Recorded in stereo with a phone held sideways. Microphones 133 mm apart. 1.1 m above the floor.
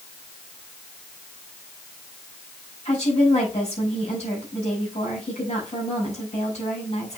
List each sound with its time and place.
2.9 s a woman speaking: 55° left (ahead or behind), 6 m